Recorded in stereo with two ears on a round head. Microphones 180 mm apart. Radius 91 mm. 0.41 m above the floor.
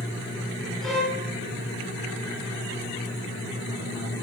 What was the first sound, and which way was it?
A violin, centre (ahead or behind).